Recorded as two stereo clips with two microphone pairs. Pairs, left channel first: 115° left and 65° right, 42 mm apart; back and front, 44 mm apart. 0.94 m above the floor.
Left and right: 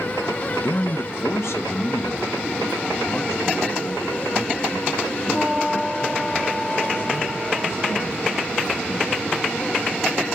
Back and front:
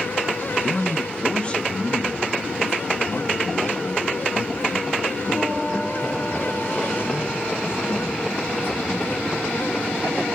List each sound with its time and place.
0.6 s a man speaking: 95° left, 0.6 m; by 9.3 s 135° left, 5 m